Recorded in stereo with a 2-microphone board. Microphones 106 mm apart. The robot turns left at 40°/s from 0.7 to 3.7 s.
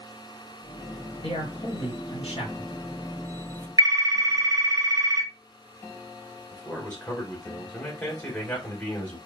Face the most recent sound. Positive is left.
turn(degrees=10)  # may be behind; listen again after turning